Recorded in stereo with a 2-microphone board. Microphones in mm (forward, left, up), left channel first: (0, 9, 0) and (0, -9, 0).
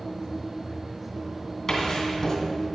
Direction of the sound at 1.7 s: 30° left (ahead or behind).